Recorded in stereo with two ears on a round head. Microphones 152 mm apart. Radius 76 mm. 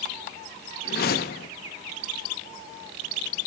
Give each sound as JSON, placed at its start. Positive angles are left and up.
{"t": 0.8, "sound": "a whoosh", "side_deg": 60, "distance_m": 1.4}